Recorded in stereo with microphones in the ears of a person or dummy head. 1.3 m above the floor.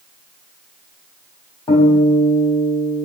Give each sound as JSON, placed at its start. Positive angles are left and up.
{"t": 1.7, "sound": "a guitar", "side_deg": 20, "distance_m": 1.1}